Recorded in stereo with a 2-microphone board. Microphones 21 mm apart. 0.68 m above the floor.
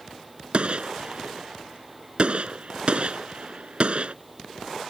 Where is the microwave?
No microwave in this recording.